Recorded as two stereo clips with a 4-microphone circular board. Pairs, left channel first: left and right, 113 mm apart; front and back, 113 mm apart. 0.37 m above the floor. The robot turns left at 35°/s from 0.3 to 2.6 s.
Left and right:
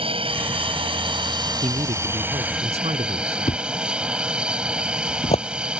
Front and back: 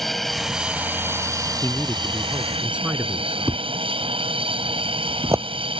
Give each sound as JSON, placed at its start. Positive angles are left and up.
{"t": 0.0, "sound": "an aircraft", "azimuth_deg": -90}
{"t": 1.6, "sound": "a man speaking", "azimuth_deg": -65}
{"t": 3.5, "sound": "a thud", "azimuth_deg": 115}